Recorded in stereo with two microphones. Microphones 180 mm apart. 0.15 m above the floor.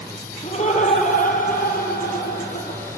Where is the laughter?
35° left (ahead or behind), 5 m; by 2.8 s 65° left (ahead or behind), 5 m.